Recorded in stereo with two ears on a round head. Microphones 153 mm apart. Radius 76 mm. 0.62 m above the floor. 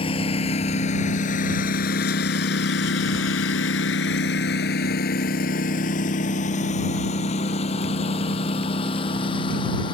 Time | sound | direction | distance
0.0 | a lawn mower | 35° left (ahead or behind) | ?